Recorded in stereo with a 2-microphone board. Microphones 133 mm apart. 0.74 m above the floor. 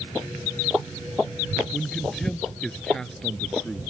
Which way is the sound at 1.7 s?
5° left (ahead or behind).